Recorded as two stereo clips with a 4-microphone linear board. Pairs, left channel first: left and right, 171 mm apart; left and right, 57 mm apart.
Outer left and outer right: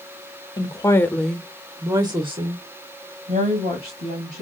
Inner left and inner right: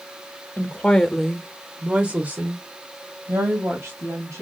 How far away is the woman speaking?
About 0.8 m.